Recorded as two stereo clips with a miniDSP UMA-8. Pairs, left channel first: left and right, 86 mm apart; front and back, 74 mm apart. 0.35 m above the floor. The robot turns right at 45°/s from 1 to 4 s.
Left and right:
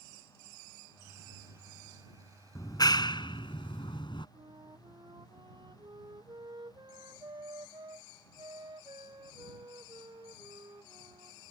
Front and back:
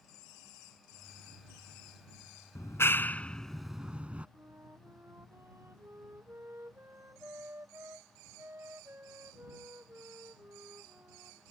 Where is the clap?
40° left; by 4.3 s 105° left.